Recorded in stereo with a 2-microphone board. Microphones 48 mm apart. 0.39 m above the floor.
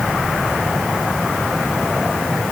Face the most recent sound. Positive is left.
No sound to turn to.